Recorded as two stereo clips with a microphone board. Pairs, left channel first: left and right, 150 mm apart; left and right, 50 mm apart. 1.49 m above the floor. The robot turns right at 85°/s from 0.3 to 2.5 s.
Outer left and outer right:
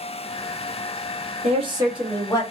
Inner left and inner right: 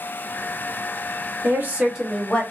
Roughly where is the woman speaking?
Ahead right.